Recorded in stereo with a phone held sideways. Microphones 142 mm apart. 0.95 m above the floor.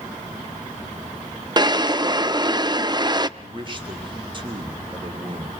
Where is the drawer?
30° right (ahead or behind), 0.5 m.